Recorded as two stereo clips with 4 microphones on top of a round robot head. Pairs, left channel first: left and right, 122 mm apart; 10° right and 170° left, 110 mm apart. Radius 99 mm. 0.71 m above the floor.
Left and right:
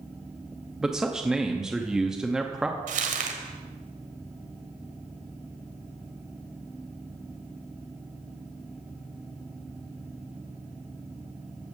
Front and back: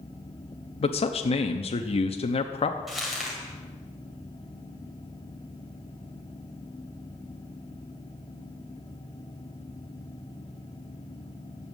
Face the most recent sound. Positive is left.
turn(degrees=-105)